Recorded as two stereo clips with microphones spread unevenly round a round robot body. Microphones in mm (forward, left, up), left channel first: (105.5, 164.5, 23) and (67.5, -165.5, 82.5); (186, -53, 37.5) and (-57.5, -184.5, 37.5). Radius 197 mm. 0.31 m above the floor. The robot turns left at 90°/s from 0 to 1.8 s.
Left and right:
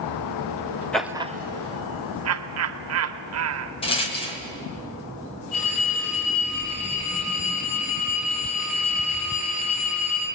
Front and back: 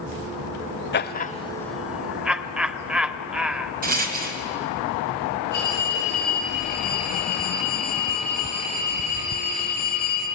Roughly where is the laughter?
Ahead.